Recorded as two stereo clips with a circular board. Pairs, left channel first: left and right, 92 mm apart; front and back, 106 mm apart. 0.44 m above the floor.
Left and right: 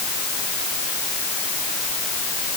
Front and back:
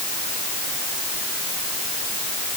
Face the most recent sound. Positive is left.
No sound to turn to.